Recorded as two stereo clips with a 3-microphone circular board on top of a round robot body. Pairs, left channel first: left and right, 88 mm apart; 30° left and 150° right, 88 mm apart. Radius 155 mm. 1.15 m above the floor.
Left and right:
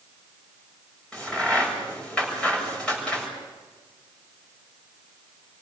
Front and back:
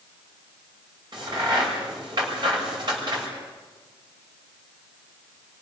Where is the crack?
170° left, 7 m.